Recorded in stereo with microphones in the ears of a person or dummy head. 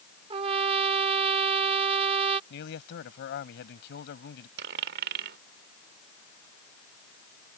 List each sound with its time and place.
0.3 s a trumpet: 25° right (ahead or behind)
2.5 s a man speaking: 65° left (ahead or behind)
4.6 s a dropped coin: 50° right (ahead or behind)